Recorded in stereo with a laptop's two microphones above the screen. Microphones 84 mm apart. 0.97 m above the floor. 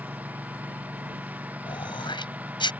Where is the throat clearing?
70° left (ahead or behind).